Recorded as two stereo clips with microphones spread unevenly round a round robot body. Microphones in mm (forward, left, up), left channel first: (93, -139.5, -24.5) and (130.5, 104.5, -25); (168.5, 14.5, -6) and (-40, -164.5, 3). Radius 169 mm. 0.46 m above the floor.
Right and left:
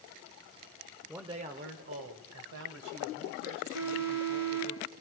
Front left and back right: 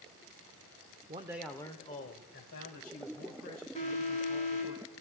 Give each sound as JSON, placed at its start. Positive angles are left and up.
{"t": 1.1, "sound": "a man speaking", "azimuth_deg": 170, "distance_m": 0.8}
{"t": 3.8, "sound": "an alarm", "azimuth_deg": 110, "distance_m": 3.0}